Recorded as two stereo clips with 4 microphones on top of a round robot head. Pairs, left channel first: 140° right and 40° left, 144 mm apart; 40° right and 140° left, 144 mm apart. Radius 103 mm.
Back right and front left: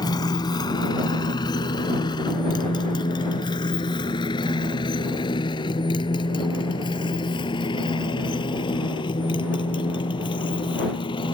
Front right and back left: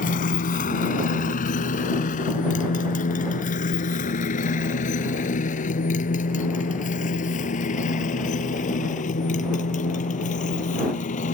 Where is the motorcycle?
75° right; by 11.3 s 80° right.